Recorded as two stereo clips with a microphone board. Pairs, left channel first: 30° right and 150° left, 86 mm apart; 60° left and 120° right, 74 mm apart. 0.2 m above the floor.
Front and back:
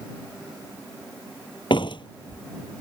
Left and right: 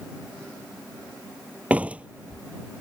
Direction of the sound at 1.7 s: 50° right.